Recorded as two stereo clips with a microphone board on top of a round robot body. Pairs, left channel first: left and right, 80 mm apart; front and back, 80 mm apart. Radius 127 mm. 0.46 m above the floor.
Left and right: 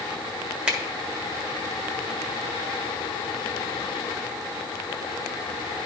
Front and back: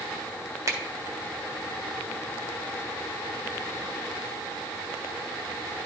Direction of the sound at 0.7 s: 160° right.